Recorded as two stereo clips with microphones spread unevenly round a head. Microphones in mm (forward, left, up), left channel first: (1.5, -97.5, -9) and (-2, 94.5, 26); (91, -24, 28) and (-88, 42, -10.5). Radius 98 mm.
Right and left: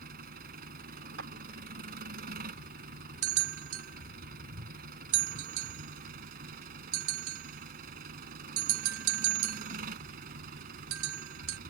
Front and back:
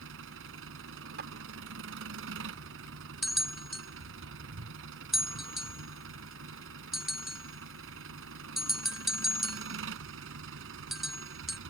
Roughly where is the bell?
Left.